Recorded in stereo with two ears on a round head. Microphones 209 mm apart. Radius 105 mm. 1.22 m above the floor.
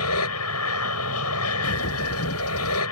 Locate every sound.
0.0 s an aircraft: 80° left
1.6 s a bird: 70° left (ahead or behind)